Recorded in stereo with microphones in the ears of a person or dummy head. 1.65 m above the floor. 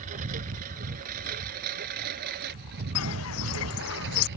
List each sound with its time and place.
0.0 s a lawn mower: 45° right (ahead or behind); by 4.4 s 65° right (ahead or behind)
3.0 s footsteps: 75° left (ahead or behind); by 4.3 s 70° left (ahead or behind)